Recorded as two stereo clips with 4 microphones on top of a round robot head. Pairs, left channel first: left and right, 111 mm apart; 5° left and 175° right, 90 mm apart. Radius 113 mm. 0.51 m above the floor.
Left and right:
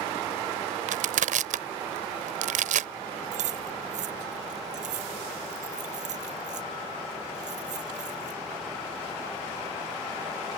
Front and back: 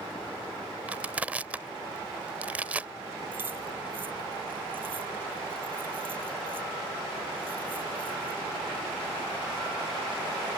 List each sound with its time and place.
0.9 s crushing: 95° right
3.3 s keys jangling: 100° right